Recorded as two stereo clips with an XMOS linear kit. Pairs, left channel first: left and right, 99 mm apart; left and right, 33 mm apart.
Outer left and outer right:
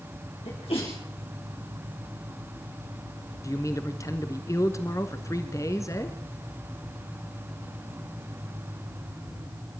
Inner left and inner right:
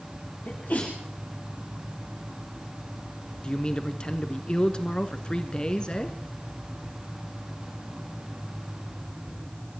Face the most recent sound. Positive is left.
turn(degrees=30)  # may be behind; listen again after turning